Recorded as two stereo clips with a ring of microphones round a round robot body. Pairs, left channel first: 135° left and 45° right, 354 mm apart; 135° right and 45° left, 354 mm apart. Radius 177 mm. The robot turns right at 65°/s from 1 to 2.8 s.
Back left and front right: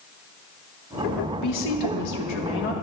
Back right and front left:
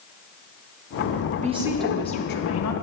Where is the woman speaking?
110° left, 1.1 m; by 2.7 s 165° right, 1.1 m.